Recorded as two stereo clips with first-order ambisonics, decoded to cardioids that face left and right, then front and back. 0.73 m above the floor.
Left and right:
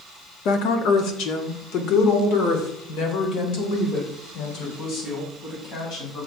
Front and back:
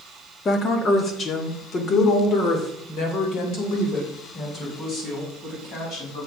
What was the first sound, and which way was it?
A woman speaking, 65° left.